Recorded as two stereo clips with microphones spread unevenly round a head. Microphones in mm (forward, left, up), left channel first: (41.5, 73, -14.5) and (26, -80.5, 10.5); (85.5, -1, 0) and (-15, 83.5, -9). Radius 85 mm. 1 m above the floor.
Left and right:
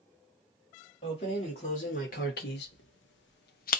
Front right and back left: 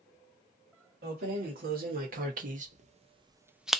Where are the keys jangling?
145° left, 1.6 m; by 3.8 s 50° left, 0.6 m.